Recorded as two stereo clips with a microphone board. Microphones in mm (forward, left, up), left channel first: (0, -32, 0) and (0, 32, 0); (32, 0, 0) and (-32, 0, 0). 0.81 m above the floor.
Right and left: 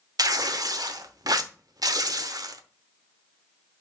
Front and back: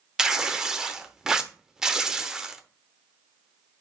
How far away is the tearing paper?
About 0.8 m.